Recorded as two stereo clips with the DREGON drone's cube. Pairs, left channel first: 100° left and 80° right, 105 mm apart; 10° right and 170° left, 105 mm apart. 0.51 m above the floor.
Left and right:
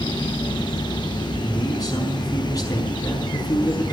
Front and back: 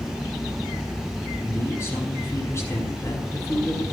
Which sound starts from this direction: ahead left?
A man speaking, at 1.4 s.